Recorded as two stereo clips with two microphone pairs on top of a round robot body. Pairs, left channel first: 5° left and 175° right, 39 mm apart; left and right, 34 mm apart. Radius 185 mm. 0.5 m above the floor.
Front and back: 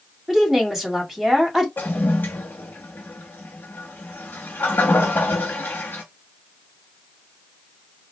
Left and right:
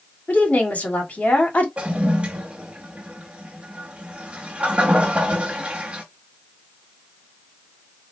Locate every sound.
0.3 s a woman speaking: 105° left, 1.7 m
1.8 s a toilet flushing: 35° right, 0.6 m